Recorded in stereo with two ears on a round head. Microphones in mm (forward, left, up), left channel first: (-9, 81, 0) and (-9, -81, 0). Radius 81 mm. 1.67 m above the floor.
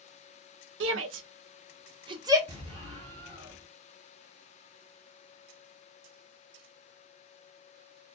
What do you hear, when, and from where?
0.8 s a shout: 80° right, 0.5 m; by 2.4 s 20° right (ahead or behind), 0.8 m
2.5 s an explosion: 25° right (ahead or behind), 1.6 m